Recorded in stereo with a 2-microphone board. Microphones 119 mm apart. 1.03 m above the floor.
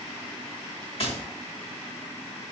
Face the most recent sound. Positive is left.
turn(degrees=55)  # may be behind; listen again after turning